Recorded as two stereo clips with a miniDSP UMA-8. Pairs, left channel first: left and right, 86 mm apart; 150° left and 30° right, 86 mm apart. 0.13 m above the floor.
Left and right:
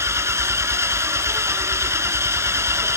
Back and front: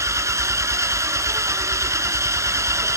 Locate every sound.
0.0 s an engine running: 55° right, 1.0 m